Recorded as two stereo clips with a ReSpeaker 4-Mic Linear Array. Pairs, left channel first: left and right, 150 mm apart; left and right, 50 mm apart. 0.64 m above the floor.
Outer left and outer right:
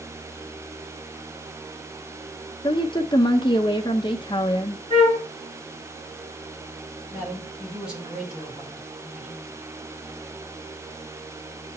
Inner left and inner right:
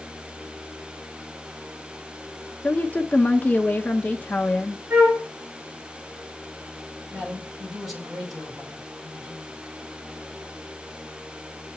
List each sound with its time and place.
2.6 s a woman speaking: 30° left (ahead or behind), 0.6 m
4.9 s a flute: 40° right (ahead or behind), 5.5 m
7.1 s a man speaking: 5° right (ahead or behind), 3 m